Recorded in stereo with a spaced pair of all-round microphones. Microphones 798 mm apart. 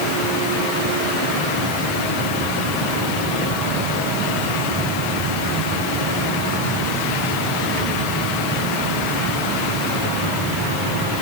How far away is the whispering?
I don't hear whispering.